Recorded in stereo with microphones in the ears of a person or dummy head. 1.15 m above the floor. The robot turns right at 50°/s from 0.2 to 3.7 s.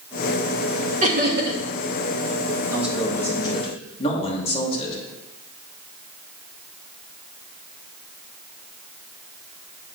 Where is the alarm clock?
I don't hear an alarm clock.